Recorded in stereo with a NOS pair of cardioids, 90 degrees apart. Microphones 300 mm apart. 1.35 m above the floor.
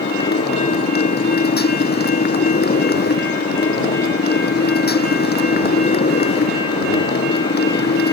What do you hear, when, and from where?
0.0 s a motorcycle: 30° left